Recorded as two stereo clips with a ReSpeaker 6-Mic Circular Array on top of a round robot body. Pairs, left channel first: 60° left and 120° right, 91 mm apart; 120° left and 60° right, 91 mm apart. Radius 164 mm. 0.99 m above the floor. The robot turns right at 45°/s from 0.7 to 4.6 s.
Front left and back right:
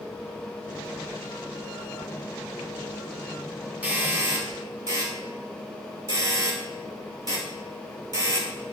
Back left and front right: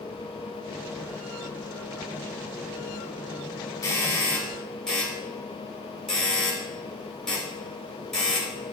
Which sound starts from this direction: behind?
A doorbell, at 3.8 s.